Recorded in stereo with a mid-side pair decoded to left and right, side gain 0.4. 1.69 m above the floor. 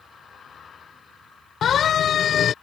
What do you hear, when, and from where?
1.6 s a siren: 65° left